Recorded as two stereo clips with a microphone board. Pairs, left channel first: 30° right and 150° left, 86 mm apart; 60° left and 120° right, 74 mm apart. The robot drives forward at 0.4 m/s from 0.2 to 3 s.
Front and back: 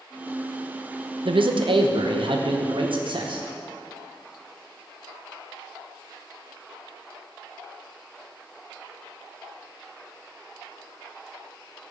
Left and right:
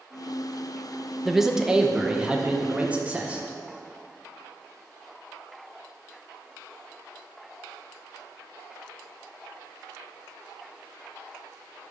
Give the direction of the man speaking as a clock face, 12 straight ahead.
7 o'clock.